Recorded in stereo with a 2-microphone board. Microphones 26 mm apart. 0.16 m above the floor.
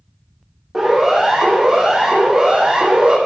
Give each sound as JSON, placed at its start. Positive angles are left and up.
{"t": 0.7, "sound": "a siren", "side_deg": -10, "distance_m": 8.0}